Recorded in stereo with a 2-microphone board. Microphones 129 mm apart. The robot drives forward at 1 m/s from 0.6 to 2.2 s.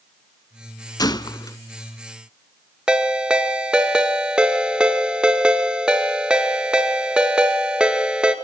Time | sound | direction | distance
1.0 | a gunshot | 30° left (ahead or behind) | 0.5 m
2.9 | a ringtone | 5° right (ahead or behind) | 1.6 m